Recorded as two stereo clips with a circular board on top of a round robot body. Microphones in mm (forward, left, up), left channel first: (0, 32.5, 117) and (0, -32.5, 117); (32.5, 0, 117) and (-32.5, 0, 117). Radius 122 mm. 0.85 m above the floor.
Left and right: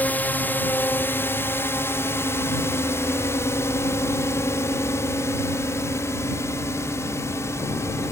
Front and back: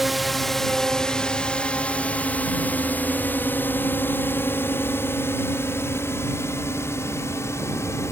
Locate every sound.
0.0 s a drone: 95° left; by 8.1 s 45° left